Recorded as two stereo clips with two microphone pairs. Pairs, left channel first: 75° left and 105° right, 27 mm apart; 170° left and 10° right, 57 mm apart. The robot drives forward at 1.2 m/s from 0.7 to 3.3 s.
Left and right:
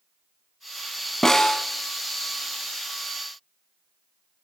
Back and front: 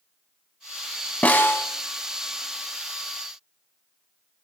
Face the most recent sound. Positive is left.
turn(degrees=175)